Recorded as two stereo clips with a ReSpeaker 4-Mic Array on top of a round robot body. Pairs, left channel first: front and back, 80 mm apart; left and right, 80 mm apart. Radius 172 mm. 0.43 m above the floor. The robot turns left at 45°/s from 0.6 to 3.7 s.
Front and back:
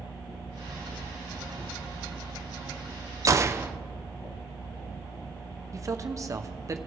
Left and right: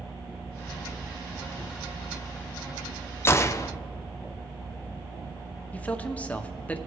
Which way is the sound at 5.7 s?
155° left.